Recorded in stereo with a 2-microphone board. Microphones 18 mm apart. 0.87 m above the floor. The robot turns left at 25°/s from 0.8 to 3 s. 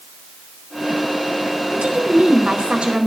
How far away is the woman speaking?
About 4.5 m.